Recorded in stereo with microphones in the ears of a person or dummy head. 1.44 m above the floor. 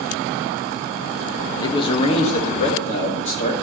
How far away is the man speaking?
About 1.2 m.